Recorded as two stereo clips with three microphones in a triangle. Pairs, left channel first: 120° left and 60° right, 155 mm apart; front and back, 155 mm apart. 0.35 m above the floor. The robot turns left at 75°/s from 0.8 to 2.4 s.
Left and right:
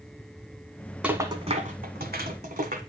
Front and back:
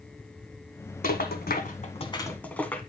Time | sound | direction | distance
1.0 | a rattle | 20° left | 1.2 m